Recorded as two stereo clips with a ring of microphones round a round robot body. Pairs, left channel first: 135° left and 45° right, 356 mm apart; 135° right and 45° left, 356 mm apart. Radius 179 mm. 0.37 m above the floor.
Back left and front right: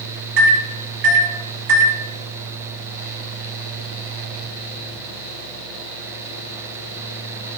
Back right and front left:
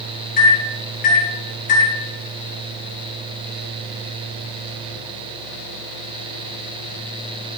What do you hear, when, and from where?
0.4 s a microwave: 70° right, 2.5 m